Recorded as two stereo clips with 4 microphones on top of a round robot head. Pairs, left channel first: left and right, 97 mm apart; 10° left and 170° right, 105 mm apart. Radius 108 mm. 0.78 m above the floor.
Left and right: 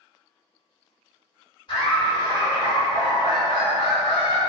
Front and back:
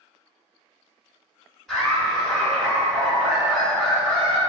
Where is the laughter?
95° left, 1.8 m.